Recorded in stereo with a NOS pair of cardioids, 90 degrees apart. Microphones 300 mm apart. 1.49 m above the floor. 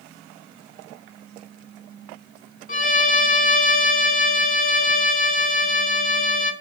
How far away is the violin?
About 2.5 m.